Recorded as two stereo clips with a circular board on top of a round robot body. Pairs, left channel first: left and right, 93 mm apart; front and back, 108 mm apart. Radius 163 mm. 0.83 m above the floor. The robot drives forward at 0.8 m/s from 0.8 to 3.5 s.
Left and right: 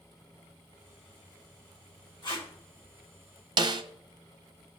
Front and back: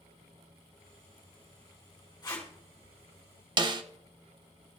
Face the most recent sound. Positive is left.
turn(degrees=-135)